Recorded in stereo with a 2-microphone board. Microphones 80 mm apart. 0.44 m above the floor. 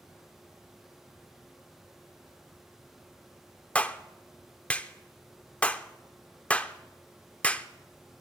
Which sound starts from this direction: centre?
A clap, at 3.8 s.